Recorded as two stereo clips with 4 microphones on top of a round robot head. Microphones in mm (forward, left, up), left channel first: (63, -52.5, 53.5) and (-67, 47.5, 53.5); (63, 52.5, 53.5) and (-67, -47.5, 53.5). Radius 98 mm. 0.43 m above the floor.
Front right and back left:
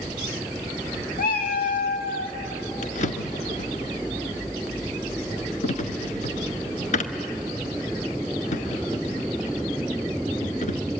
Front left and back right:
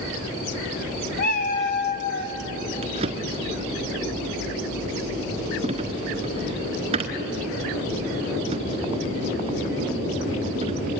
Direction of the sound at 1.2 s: 5° left.